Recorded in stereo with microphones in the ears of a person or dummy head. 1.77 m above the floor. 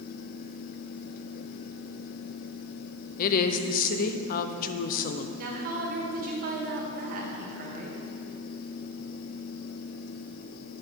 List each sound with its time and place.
3.2 s a woman speaking: 50° left (ahead or behind), 0.6 m
5.4 s a woman speaking: 50° right (ahead or behind), 1.5 m